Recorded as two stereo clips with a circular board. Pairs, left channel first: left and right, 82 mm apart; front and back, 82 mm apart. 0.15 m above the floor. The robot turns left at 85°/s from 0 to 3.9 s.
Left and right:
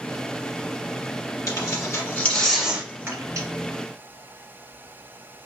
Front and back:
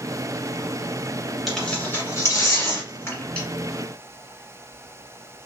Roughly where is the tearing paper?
Left.